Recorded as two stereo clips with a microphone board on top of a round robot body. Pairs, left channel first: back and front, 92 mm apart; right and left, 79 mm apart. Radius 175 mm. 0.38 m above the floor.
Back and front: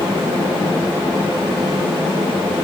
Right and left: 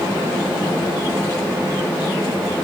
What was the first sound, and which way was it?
Only background noise.